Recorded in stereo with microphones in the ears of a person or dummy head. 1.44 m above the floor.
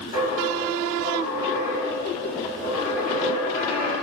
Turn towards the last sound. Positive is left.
turn(degrees=35)  # may be behind; listen again after turning